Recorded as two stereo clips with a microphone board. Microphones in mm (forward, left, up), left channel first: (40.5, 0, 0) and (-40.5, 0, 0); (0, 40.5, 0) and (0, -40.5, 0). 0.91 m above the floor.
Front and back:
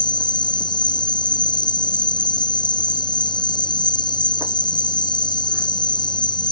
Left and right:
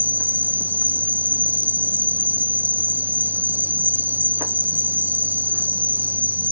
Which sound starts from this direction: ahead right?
An insect, at 0.0 s.